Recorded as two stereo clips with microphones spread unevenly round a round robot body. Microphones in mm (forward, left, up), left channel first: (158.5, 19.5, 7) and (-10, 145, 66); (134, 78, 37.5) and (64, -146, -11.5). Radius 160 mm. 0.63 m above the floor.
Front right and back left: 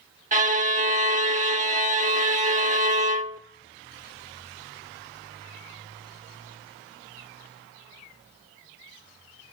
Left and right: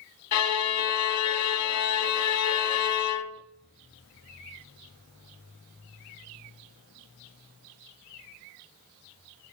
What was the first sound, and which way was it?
A violin, 90° left.